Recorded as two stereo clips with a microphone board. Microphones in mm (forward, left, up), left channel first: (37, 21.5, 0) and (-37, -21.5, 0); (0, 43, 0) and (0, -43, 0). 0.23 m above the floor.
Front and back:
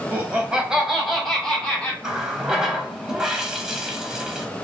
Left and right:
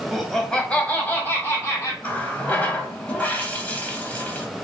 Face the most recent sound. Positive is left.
turn(degrees=135)